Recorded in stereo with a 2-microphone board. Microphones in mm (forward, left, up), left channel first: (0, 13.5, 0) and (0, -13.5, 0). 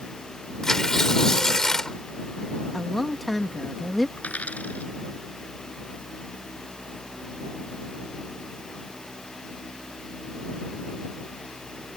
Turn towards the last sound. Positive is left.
turn(degrees=75)  # may be behind; listen again after turning